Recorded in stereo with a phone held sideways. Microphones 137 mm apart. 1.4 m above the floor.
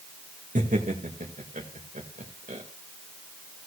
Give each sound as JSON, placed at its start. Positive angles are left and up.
{"t": 0.6, "sound": "laughter", "side_deg": -70, "distance_m": 2.0}